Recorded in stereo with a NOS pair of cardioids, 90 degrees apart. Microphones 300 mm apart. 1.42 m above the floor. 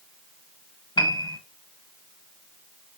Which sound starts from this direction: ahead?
A piano, at 1.0 s.